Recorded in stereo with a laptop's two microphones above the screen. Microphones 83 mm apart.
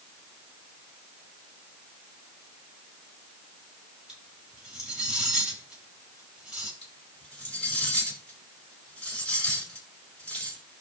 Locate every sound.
4.1 s cutlery clinking: 5° right (ahead or behind), 6.5 m
6.8 s cutlery clinking: 15° left (ahead or behind), 6 m